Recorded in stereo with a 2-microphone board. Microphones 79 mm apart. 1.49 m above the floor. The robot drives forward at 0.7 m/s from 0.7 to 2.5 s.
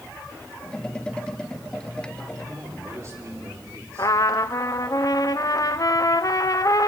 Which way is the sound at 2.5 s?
40° right (ahead or behind).